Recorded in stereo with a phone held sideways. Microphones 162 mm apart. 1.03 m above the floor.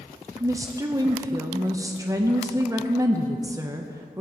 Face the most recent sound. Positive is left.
turn(degrees=-20)  # may be behind; listen again after turning